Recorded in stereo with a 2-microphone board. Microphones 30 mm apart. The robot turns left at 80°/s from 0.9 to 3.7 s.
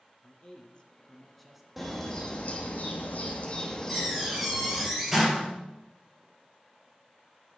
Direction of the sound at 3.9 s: 10° right (ahead or behind).